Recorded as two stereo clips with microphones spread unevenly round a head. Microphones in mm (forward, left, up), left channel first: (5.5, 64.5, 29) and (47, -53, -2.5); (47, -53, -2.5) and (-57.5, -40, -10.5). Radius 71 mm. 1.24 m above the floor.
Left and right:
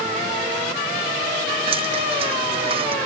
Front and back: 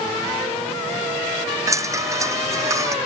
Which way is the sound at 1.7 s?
125° right.